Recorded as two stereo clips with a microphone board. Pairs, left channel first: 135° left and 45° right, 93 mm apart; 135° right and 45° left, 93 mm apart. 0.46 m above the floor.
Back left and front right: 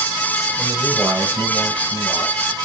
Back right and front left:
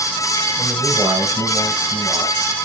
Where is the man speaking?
25° left, 1.9 m; by 2.3 s straight ahead, 3.5 m.